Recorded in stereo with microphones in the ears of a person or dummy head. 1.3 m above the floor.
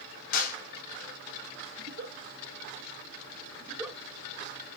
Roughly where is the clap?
Left.